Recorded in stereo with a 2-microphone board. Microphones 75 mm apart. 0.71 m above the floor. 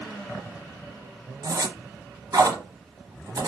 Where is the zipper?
60° right (ahead or behind), 1.0 m.